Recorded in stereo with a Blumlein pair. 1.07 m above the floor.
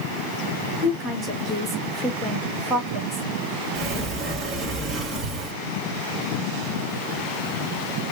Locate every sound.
0.8 s a woman speaking: 10° right, 1.9 m
3.8 s a sliding door: 15° right, 1.9 m